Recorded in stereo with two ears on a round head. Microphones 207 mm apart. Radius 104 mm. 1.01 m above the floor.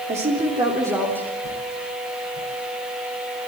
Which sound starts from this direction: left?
A whoosh, at 1.4 s.